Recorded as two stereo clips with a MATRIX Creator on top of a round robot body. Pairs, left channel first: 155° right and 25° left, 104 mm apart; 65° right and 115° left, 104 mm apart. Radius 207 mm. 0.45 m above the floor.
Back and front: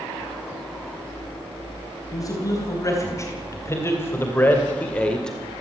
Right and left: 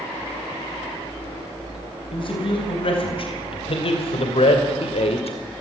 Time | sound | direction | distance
2.1 | a man speaking | 100° right | 4.5 m